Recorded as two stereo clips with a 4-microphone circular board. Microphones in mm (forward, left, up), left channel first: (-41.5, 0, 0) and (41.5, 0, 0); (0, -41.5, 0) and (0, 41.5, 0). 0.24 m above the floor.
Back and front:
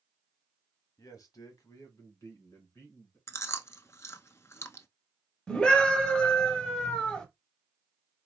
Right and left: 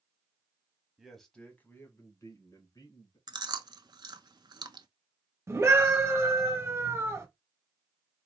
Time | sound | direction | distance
1.0 | a man speaking | 170° left | 1.2 m
3.3 | chewing | 125° left | 0.5 m
5.5 | a scream | 110° left | 1.3 m